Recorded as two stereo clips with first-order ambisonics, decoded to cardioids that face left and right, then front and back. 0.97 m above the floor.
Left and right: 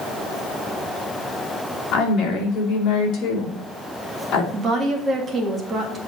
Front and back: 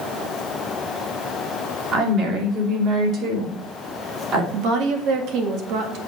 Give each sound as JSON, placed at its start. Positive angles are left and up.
{"t": 1.9, "sound": "a woman speaking", "azimuth_deg": 135, "distance_m": 3.0}
{"t": 4.5, "sound": "a woman speaking", "azimuth_deg": -160, "distance_m": 1.8}